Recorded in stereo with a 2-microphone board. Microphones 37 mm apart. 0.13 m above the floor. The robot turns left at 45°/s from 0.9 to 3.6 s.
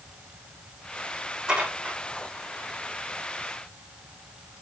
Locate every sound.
1.5 s dishes clattering: 20° right (ahead or behind), 4.5 m; by 2.0 s 45° right (ahead or behind), 4.5 m